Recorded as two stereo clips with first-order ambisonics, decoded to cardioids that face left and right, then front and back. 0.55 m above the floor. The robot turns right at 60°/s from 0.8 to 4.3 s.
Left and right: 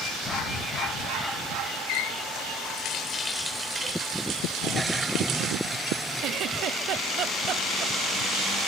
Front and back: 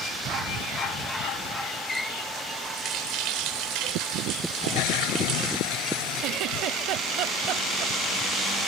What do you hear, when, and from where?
1.9 s a running tap: 75° left; by 5.6 s 140° right
4.6 s a toilet flushing: 5° right
6.2 s a giggle: 140° right